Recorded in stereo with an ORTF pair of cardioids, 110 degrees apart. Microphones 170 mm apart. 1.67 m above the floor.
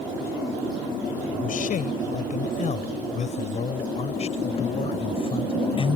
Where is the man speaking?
55° left; by 6.0 s 30° left.